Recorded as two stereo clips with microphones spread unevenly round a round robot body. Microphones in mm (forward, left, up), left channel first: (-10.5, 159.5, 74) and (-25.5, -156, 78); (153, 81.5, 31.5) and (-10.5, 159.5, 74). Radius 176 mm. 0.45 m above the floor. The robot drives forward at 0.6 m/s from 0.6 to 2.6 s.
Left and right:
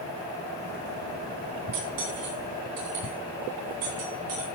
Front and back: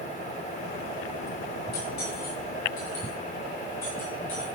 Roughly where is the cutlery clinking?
Ahead right.